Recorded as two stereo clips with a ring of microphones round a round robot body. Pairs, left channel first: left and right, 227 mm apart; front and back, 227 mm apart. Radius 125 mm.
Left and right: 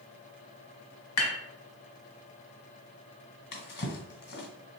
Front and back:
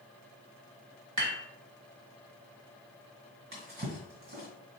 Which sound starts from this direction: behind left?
A drawer, at 3.5 s.